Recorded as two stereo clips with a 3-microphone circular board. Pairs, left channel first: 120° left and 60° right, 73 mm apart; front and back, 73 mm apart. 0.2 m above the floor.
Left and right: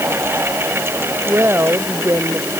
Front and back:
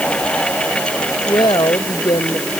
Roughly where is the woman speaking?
Ahead.